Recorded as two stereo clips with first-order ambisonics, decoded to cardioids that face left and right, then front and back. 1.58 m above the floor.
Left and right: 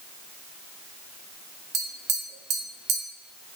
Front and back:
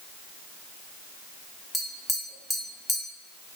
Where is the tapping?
85° right, 0.5 m.